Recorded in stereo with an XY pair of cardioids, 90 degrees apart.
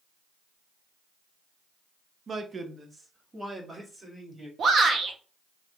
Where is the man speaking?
45° right, 0.8 m; by 4.5 s 15° right, 2.0 m.